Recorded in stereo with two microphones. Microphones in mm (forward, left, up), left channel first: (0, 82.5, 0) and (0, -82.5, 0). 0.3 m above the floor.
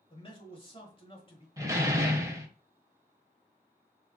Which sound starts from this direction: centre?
A door slam, at 1.6 s.